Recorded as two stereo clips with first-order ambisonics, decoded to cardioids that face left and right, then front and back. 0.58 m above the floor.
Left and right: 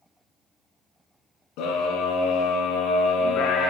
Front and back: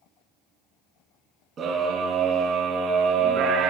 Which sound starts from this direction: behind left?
A scream, at 1.6 s.